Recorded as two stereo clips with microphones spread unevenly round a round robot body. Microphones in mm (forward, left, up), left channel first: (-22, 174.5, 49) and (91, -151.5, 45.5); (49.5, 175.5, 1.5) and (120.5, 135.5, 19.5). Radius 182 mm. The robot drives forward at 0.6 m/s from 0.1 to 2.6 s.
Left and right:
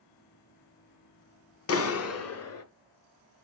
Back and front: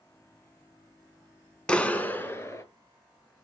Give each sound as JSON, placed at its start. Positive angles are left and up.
{"t": 1.7, "sound": "a clap", "azimuth_deg": 95, "distance_m": 1.0}